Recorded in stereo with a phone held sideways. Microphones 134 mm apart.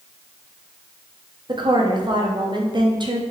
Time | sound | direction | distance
1.5 | a woman speaking | 35° right (ahead or behind) | 0.7 m